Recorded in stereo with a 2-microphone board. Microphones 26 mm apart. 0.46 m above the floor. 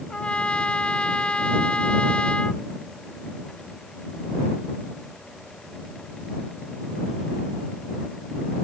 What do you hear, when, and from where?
0.1 s a trumpet: 40° left (ahead or behind)